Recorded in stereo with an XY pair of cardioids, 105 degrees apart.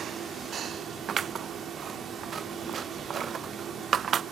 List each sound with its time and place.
0.0 s a fan: 55° right, 2.5 m
1.1 s scissors: 45° right, 0.5 m